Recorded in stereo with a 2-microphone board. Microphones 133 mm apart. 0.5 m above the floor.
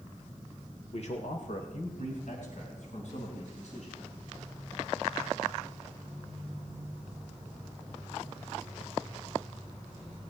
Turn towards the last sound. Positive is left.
turn(degrees=60)  # may be behind; listen again after turning